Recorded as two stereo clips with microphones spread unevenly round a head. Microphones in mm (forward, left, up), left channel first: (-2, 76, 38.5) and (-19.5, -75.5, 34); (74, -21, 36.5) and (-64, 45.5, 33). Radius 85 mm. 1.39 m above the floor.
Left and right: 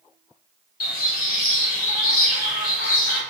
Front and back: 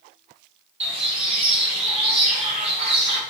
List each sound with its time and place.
0.8 s a bird: 105° left, 1.8 m